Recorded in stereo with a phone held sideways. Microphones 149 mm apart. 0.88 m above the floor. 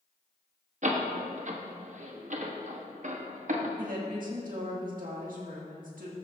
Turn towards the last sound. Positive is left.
turn(degrees=-65)  # may be behind; listen again after turning